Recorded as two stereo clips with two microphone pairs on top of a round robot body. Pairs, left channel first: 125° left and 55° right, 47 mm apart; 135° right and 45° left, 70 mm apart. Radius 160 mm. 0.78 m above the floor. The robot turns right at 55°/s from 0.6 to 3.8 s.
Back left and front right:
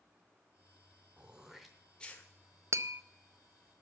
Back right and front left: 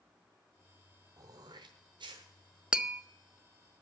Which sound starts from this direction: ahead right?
Tapping, at 2.7 s.